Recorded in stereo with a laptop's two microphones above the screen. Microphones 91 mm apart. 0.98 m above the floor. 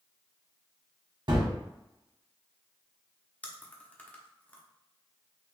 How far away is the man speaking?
No man speaking in this recording.